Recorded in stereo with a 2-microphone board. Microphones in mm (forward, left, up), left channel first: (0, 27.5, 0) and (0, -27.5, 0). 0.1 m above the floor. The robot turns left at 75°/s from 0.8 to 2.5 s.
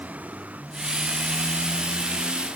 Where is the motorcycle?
30° right; by 2.6 s 155° right.